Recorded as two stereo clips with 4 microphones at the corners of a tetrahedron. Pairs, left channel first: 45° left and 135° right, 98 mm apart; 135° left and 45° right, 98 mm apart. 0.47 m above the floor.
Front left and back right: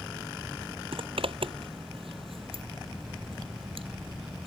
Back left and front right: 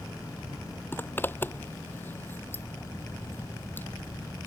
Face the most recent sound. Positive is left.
turn(degrees=-155)